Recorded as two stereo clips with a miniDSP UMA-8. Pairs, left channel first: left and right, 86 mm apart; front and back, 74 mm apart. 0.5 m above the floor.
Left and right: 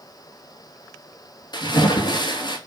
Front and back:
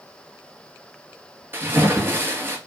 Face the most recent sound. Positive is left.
turn(degrees=120)